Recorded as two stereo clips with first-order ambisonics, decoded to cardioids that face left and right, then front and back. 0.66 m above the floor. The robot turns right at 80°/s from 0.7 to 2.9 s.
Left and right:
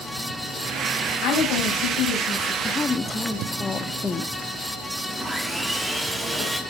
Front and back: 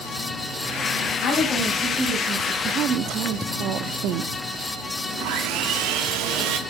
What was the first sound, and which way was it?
A woman speaking, 45° left.